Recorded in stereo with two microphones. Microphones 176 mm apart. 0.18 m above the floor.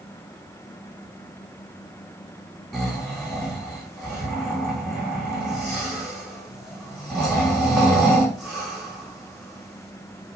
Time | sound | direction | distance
2.7 | snoring | centre (ahead or behind) | 4 m